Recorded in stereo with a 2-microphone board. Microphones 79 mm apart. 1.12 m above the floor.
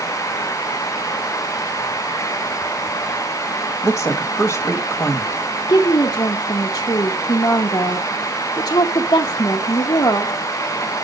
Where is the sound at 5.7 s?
65° left (ahead or behind), 1.0 m.